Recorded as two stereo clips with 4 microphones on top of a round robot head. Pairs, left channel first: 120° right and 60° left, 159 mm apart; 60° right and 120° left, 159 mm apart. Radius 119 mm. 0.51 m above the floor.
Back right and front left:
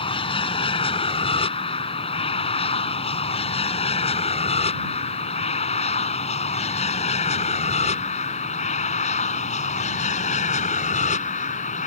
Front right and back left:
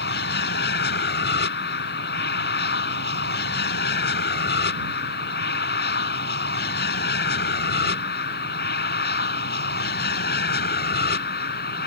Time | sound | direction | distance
0.0 | an aircraft | 65° right | ?